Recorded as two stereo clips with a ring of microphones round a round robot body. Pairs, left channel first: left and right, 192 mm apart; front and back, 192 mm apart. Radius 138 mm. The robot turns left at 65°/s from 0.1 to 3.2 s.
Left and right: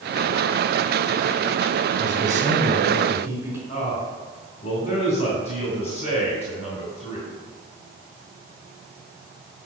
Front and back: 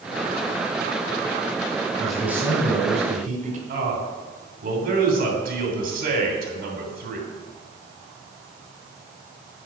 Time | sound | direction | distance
2.0 | a man speaking | 80° right | 1.6 m
3.7 | a man speaking | 150° left | 3 m